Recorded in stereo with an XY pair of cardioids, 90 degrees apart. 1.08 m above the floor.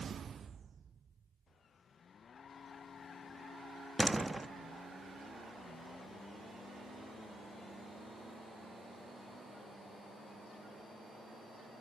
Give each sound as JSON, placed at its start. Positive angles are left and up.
{"t": 4.0, "sound": "a door slam", "azimuth_deg": -15, "distance_m": 1.1}